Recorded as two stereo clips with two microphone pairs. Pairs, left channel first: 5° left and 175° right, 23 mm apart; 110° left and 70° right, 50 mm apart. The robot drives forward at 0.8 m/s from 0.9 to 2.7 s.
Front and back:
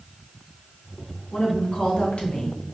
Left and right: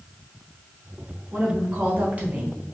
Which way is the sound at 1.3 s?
5° right.